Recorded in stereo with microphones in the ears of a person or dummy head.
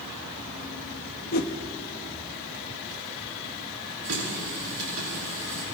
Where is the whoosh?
50° left (ahead or behind), 1.2 m.